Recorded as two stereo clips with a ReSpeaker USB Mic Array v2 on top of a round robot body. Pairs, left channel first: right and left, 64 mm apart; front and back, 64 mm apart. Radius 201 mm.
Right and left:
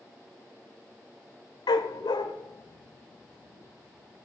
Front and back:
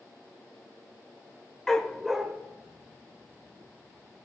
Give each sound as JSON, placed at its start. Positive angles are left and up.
{"t": 1.7, "sound": "a dog barking", "azimuth_deg": -85, "distance_m": 0.5}